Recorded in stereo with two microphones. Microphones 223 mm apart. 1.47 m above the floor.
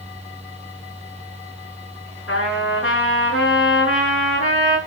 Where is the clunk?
No clunk in this recording.